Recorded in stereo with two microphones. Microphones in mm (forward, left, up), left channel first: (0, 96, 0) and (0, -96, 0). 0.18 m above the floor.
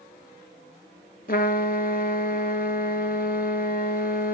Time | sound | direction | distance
1.3 | a trumpet | 55° left (ahead or behind) | 0.8 m